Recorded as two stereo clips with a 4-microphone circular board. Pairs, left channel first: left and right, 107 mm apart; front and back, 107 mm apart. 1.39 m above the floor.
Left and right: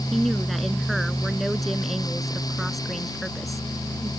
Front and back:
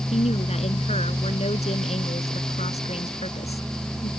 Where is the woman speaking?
Straight ahead.